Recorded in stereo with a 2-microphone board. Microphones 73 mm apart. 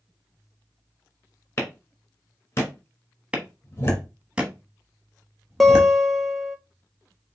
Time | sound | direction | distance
1.6 | a clap | 35° left (ahead or behind) | 2 m
3.3 | a clap | 15° right (ahead or behind) | 1.2 m
5.6 | a guitar | centre (ahead or behind) | 0.8 m